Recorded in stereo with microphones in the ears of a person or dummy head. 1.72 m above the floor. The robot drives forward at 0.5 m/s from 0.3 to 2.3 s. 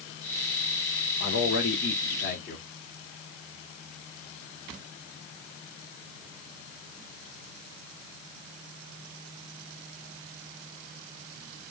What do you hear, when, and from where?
1.2 s a man speaking: 70° left (ahead or behind), 1.2 m; by 2.7 s 55° left (ahead or behind), 1.4 m